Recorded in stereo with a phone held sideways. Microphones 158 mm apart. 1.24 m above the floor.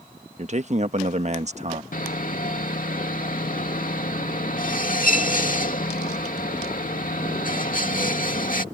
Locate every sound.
0.4 s a man speaking: 45° right (ahead or behind)
1.9 s sawing: 60° left (ahead or behind)